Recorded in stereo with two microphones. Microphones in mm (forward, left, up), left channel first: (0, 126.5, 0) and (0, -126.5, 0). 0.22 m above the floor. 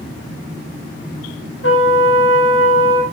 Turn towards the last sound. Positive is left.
turn(degrees=55)  # may be behind; listen again after turning